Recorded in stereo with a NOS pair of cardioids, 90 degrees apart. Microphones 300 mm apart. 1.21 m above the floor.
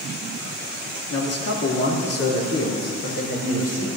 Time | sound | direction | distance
1.1 | a man speaking | 50° left | 2.5 m